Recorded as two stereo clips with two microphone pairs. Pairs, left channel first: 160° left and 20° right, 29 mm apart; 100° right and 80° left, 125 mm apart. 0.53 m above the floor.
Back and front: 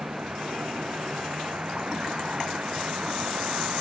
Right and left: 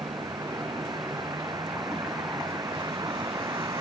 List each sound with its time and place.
0.0 s a vehicle: 20° left